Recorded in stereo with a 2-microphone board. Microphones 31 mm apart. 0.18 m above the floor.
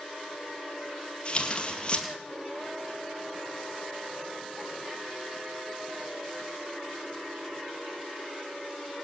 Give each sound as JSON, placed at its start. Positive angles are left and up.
{"t": 1.2, "sound": "tearing paper", "side_deg": 35, "distance_m": 2.0}